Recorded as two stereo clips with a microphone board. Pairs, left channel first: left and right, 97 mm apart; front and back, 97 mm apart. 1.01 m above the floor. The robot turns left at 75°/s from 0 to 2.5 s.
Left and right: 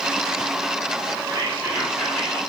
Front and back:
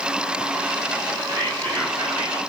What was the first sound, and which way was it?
Whispering, 135° right.